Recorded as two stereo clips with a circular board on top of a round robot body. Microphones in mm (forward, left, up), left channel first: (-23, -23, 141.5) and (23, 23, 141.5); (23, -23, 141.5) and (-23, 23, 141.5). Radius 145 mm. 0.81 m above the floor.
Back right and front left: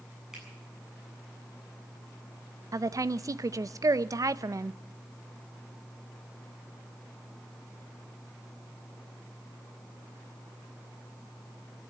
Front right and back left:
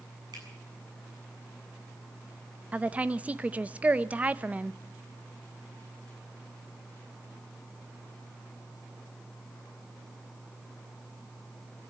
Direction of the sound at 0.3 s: 125° left.